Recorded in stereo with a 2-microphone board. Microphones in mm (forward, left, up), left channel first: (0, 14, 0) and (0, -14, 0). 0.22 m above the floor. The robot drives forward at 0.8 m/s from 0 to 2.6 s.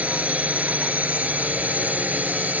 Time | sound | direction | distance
0.0 | a drone | 55° right (ahead or behind) | ?